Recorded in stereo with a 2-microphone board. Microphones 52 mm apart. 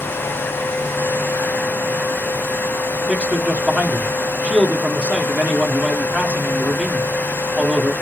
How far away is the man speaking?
About 0.8 m.